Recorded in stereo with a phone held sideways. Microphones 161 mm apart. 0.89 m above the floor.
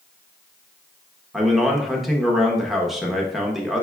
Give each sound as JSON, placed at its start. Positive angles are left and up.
{"t": 1.3, "sound": "a man speaking", "side_deg": 0, "distance_m": 0.8}